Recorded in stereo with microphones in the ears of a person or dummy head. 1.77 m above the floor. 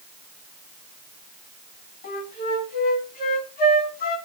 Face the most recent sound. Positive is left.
turn(degrees=40)  # may be behind; listen again after turning